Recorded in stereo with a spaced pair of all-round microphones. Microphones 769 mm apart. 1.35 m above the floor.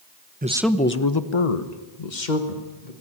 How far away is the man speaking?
About 1.1 m.